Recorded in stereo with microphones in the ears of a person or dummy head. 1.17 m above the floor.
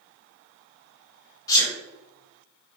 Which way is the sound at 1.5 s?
15° left (ahead or behind).